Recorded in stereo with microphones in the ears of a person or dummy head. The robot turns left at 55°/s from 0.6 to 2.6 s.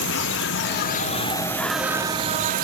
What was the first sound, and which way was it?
An insect, 60° left.